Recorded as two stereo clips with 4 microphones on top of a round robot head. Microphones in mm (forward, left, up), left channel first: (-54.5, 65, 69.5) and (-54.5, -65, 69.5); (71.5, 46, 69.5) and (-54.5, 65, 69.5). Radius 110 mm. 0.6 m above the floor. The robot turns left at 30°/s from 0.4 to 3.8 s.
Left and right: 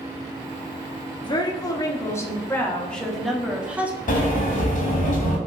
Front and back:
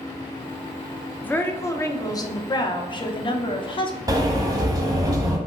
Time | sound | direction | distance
1.2 | a woman speaking | 60° left | 0.9 m
4.1 | a sliding door | 110° left | 1.1 m